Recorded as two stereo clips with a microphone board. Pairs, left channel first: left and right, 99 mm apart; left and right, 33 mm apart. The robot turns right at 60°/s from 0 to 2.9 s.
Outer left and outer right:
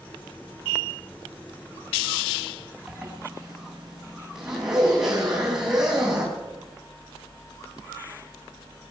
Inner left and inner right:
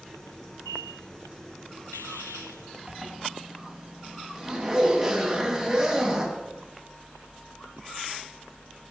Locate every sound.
2.9 s a zipper: 5° right (ahead or behind), 3.5 m